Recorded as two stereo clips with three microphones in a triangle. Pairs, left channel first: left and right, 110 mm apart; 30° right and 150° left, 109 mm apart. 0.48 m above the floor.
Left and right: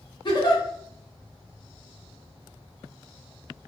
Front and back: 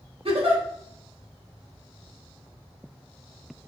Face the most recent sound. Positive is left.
turn(degrees=130)